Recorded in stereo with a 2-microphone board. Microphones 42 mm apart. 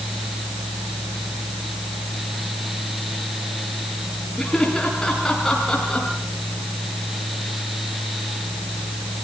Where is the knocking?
I don't hear knocking.